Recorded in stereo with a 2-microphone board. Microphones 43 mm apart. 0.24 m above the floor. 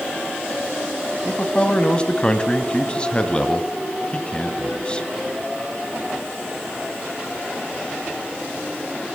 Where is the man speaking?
25° left (ahead or behind), 1.9 m.